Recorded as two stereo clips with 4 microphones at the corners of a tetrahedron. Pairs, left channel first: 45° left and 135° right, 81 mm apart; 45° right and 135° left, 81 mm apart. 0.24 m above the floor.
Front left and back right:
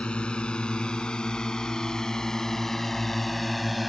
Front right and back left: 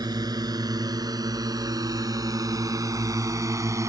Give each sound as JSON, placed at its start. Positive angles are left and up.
{"t": 0.0, "sound": "a drone", "azimuth_deg": 120}